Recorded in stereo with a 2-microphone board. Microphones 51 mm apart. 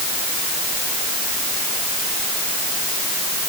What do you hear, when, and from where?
Only background noise.